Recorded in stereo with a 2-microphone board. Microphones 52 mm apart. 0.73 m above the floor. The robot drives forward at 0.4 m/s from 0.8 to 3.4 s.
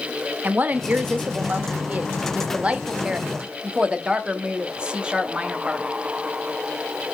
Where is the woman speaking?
30° right (ahead or behind), 0.6 m; by 5.9 s 20° right (ahead or behind), 1.1 m.